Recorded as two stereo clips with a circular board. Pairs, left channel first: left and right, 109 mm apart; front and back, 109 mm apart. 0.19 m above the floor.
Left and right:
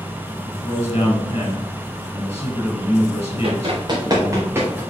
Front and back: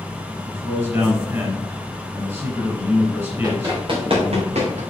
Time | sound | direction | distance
0.5 | a man speaking | 115° left | 3.5 m
3.4 | running footsteps | 125° right | 3 m